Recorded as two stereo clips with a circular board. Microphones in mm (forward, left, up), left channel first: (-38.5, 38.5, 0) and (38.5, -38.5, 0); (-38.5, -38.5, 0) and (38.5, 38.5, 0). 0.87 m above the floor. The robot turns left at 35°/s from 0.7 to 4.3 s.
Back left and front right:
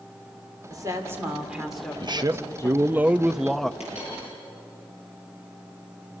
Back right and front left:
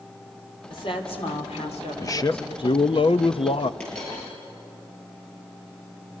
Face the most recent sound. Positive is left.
turn(degrees=130)